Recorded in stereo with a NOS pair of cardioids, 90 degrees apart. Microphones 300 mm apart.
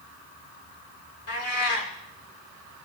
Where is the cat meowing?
55° left, 3.5 m.